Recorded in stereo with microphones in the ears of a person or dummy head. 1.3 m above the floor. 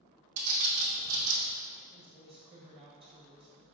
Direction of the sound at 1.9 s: 30° right (ahead or behind).